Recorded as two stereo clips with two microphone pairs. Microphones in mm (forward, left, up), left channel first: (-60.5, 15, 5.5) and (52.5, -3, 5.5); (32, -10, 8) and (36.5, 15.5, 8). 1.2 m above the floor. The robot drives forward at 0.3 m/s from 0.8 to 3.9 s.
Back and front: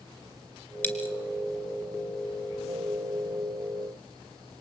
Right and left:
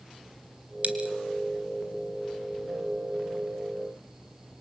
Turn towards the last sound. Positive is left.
turn(degrees=120)